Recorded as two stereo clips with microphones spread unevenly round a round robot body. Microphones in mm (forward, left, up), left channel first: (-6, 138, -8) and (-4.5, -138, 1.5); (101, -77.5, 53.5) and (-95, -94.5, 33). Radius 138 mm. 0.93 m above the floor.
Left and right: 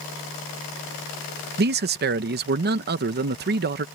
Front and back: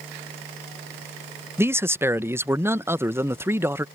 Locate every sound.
1.6 s a man speaking: 115° right